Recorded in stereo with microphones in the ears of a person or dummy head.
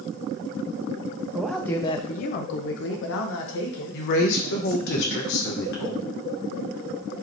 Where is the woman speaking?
65° left (ahead or behind), 1.0 m.